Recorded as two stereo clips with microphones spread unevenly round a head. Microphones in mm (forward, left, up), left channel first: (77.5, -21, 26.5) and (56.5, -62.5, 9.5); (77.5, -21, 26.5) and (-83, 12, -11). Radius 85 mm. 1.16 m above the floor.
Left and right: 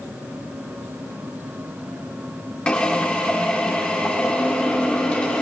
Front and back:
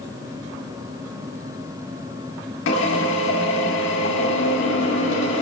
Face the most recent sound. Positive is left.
turn(degrees=-5)